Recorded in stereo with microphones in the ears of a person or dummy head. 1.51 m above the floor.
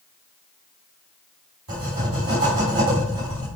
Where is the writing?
50° right (ahead or behind), 3.5 m.